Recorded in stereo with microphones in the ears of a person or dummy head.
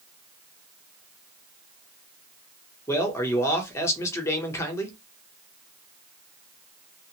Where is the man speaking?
15° left (ahead or behind), 0.8 m.